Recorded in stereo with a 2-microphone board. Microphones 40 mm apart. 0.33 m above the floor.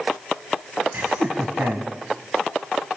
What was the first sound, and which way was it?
Laughter, 55° right (ahead or behind).